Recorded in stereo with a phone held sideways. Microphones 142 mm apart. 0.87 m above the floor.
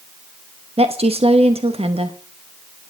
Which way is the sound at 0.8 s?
45° right (ahead or behind).